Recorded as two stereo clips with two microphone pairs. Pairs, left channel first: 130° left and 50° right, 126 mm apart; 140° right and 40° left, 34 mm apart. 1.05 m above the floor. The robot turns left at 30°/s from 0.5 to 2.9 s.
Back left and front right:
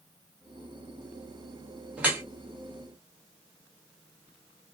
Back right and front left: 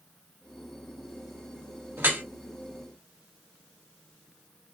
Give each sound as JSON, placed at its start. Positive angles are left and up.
{"t": 2.0, "sound": "dripping", "azimuth_deg": 30, "distance_m": 1.0}